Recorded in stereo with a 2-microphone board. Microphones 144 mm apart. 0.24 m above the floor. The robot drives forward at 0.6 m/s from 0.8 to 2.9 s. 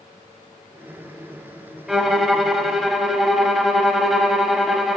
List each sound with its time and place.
1.9 s a violin: centre (ahead or behind), 0.6 m